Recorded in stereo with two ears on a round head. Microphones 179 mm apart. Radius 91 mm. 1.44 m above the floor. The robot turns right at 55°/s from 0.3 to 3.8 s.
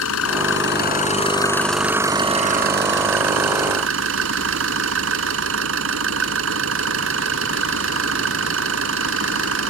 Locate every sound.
0.0 s an engine running: 100° left; by 9.7 s 65° right